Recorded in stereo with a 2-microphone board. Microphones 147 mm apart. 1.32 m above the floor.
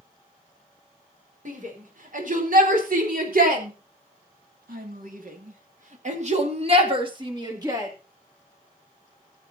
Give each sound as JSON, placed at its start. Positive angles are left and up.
{"t": 1.4, "sound": "a shout", "side_deg": -65, "distance_m": 5.0}